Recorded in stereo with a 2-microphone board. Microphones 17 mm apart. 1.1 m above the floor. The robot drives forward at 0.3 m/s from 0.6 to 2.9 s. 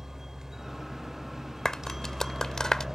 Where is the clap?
45° left (ahead or behind); by 2.9 s 55° left (ahead or behind).